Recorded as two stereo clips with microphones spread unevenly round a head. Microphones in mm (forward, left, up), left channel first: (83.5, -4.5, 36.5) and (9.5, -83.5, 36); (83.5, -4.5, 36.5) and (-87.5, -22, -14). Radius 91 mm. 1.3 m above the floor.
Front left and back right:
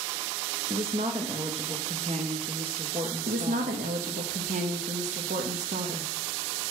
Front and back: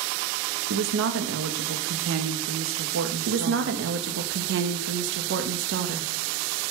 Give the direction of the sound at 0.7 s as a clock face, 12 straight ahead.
6 o'clock.